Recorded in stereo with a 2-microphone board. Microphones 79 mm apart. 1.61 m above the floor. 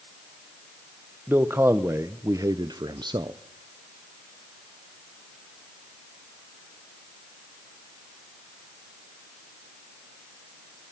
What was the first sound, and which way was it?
A man speaking, 25° right (ahead or behind).